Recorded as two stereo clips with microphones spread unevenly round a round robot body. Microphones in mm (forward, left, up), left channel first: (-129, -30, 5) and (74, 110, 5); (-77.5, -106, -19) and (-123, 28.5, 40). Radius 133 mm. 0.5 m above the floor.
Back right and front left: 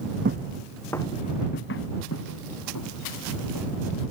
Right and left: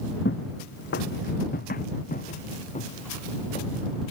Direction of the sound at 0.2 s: 20° right.